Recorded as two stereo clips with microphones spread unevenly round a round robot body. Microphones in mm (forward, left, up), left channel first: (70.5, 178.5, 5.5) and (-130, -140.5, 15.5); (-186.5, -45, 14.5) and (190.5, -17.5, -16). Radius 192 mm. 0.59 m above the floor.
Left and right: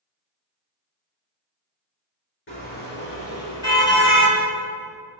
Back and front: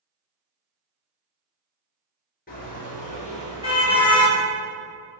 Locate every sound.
2.5 s a car horn: 115° left, 5.5 m; by 4.4 s 105° left, 5.5 m